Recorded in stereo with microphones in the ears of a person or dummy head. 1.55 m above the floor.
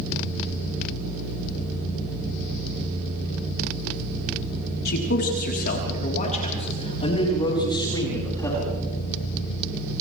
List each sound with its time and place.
4.8 s a man speaking: 60° left (ahead or behind), 4 m; by 8.7 s 15° left (ahead or behind), 6 m